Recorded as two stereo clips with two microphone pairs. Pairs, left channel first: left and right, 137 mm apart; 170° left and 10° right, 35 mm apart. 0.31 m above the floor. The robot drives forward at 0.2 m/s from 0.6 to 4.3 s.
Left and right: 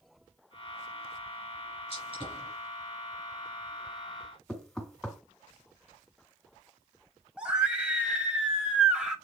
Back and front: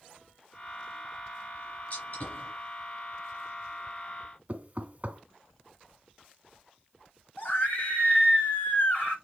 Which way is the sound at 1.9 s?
135° left.